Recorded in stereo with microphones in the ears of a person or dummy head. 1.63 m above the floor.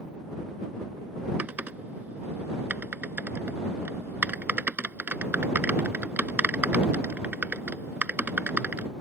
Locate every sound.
1.4 s typing on a keyboard: 10° right (ahead or behind)